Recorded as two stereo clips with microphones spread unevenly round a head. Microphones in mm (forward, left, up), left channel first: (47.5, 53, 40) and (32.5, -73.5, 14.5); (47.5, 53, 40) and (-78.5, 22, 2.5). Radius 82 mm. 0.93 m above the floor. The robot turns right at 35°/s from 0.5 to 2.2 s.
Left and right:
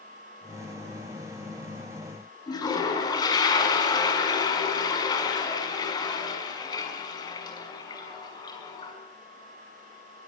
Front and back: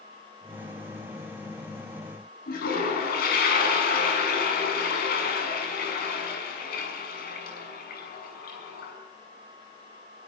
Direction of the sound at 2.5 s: 25° left.